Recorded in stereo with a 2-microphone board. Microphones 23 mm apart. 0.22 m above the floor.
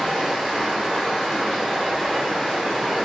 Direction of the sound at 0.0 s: 55° right (ahead or behind).